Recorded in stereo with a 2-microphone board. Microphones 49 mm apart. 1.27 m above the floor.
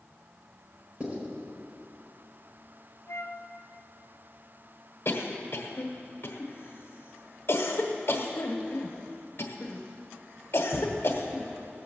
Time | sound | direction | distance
1.0 | writing | 40° right (ahead or behind) | 4 m
3.1 | a flute | 80° left | 0.7 m
5.0 | a cough | 50° left (ahead or behind) | 1.1 m